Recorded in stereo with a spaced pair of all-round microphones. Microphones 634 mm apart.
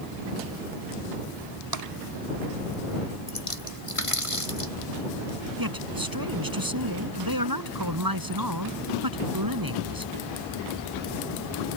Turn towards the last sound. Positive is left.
turn(degrees=-35)  # may be behind; listen again after turning